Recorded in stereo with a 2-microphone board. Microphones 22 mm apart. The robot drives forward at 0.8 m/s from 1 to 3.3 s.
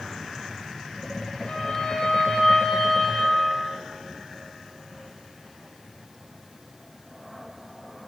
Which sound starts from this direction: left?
A violin, at 1.5 s.